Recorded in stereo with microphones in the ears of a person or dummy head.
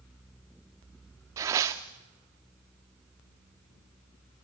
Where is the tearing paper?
15° right (ahead or behind), 0.7 m.